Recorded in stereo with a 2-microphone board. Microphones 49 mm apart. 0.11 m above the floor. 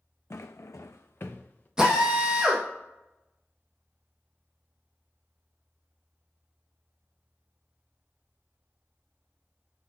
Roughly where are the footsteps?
Left.